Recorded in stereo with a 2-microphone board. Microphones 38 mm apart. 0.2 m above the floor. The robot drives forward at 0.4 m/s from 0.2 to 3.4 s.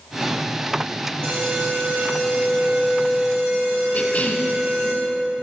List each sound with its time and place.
1.2 s an alarm: 60° right (ahead or behind), 5 m; by 4.9 s 65° right (ahead or behind), 4.5 m
3.9 s a cough: 40° left (ahead or behind), 2.5 m